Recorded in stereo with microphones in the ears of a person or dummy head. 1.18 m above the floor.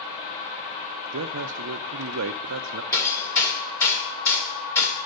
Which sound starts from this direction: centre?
Hammering, at 2.9 s.